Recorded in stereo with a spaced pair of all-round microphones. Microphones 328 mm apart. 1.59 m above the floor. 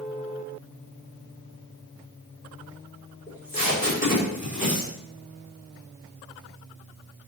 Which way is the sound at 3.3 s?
25° left (ahead or behind).